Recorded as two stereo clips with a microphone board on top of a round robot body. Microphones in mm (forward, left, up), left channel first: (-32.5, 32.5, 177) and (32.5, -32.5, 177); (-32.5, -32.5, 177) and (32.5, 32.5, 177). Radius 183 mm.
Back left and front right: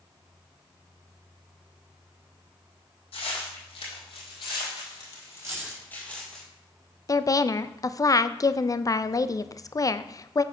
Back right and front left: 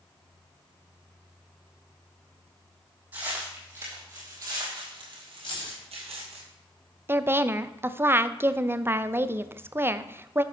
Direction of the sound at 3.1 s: 120° left.